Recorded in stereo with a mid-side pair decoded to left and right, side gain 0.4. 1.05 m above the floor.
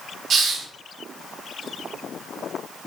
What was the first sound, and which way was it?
A hiss, 60° right.